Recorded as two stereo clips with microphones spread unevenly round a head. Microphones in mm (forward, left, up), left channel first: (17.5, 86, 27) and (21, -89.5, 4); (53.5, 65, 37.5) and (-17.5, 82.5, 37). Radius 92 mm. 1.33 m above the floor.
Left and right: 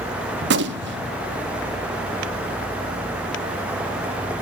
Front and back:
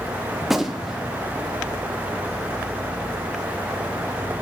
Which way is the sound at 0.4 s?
105° right.